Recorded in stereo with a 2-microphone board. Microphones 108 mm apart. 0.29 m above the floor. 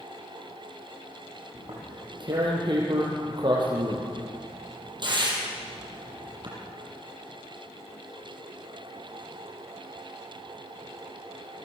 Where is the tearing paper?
45° right (ahead or behind), 6.5 m.